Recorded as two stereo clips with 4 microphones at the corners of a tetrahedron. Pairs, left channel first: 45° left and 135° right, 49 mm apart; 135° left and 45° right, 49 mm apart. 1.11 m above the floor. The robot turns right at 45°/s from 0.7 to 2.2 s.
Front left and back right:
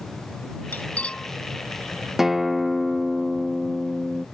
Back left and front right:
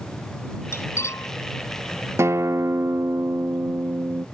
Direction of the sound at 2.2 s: 50° right.